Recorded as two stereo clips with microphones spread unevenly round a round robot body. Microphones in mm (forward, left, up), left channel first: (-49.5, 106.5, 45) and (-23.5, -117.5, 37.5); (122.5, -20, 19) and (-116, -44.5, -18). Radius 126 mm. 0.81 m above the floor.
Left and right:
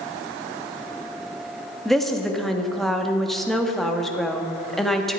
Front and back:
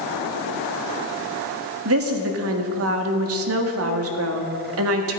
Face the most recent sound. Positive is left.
turn(degrees=-175)